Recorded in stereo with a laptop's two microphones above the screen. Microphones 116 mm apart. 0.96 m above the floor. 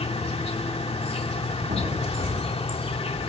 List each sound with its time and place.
0.0 s an insect: 60° left (ahead or behind), 2 m
1.7 s an explosion: 70° right (ahead or behind), 9 m